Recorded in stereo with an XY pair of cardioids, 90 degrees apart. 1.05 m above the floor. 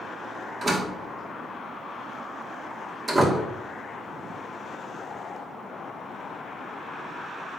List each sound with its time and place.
0.6 s a door slam: 35° right, 2 m